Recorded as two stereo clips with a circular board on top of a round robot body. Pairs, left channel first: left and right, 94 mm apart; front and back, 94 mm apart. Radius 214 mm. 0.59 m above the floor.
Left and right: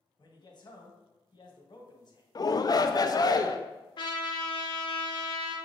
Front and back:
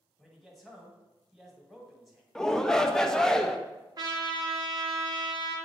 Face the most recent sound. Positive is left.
turn(degrees=130)